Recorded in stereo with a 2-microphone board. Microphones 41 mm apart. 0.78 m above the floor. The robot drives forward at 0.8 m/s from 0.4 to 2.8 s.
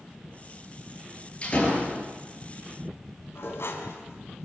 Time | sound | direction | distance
1.4 | a door slam | 30° left (ahead or behind) | 8.5 m
3.4 | dishes clattering | 75° left (ahead or behind) | 4 m